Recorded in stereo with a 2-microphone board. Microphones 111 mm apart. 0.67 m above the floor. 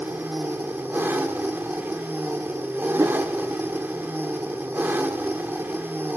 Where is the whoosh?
30° right (ahead or behind), 0.8 m.